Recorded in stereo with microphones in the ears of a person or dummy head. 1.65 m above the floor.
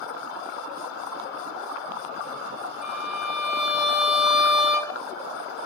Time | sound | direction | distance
2.8 | a violin | centre (ahead or behind) | 3.5 m